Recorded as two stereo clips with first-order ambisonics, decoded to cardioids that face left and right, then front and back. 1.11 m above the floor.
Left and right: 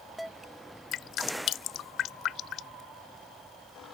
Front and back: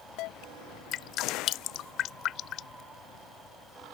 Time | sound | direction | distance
0.9 | dripping | 45° left | ?